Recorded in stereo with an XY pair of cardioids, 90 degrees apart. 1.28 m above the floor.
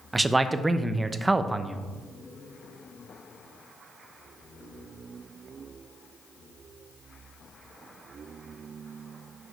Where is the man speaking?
20° right, 0.7 m.